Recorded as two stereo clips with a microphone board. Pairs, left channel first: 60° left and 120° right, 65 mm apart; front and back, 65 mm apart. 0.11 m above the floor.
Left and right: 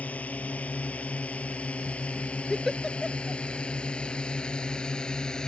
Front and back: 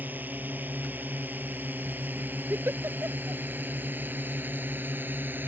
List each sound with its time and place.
0.0 s a drone: 125° left; by 5.5 s 135° left
2.5 s a giggle: 150° left